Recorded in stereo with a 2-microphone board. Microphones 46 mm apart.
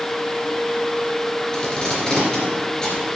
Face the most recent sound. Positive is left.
turn(degrees=15)  # may be behind; listen again after turning